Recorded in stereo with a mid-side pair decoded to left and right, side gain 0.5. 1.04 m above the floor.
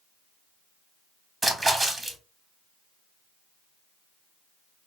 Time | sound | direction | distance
1.4 | a splash | 15° right | 1.1 m